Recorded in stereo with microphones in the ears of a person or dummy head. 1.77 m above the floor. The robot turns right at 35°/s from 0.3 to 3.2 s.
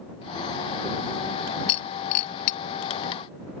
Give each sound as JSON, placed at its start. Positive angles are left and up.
{"t": 1.7, "sound": "breaking glass", "side_deg": 40}